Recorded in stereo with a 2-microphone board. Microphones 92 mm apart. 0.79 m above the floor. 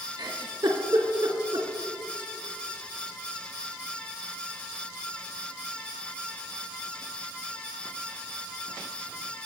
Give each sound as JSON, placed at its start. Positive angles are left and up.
{"t": 0.2, "sound": "a giggle", "side_deg": -55, "distance_m": 2.0}